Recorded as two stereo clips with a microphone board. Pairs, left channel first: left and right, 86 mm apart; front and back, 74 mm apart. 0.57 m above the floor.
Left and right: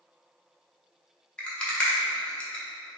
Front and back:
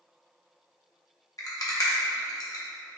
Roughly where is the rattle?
Ahead.